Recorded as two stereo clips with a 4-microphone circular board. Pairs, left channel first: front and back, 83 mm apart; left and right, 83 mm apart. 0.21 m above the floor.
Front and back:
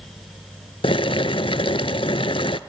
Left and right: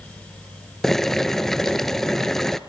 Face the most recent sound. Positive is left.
turn(degrees=5)